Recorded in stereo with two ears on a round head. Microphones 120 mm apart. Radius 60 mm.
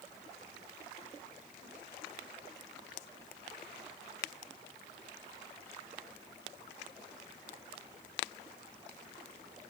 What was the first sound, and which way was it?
Only background noise.